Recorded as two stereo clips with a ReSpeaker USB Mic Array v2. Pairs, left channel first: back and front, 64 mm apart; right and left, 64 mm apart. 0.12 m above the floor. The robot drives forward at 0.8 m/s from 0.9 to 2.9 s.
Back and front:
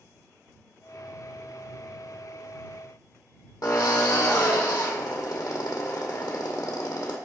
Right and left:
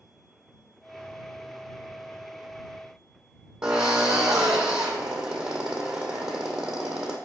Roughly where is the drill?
Behind.